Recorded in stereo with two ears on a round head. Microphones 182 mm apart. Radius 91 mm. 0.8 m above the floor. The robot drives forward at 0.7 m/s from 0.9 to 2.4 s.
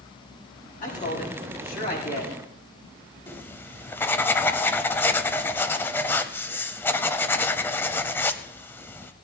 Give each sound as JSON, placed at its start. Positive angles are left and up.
{"t": 0.8, "sound": "a man speaking", "side_deg": 40, "distance_m": 6.5}
{"t": 3.3, "sound": "writing", "side_deg": 10, "distance_m": 0.6}